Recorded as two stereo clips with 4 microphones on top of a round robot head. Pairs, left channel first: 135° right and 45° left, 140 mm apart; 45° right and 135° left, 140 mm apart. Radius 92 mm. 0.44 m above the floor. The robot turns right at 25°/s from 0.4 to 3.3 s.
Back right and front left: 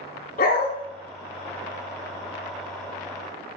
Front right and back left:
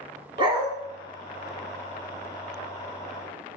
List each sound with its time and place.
0.4 s a dog barking: 165° right, 2 m; by 0.7 s 160° right, 2 m